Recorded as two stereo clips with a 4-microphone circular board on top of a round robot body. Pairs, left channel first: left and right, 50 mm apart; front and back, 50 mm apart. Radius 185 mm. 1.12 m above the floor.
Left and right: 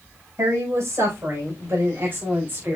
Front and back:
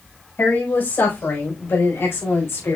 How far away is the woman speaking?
About 5.5 m.